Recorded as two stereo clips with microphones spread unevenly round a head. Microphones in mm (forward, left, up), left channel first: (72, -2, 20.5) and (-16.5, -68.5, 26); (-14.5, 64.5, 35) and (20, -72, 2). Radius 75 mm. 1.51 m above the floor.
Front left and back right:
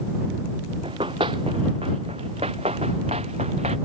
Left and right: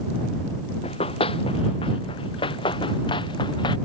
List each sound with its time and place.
0.8 s running footsteps: 155° left; by 3.8 s 165° left